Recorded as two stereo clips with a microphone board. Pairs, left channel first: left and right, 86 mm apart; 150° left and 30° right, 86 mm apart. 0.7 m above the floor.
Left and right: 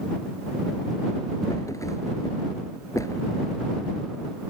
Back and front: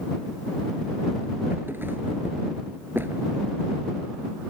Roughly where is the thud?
Ahead left.